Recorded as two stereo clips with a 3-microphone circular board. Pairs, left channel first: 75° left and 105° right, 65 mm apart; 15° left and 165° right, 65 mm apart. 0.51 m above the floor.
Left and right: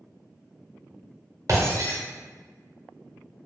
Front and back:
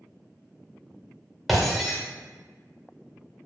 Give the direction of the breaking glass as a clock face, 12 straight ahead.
3 o'clock.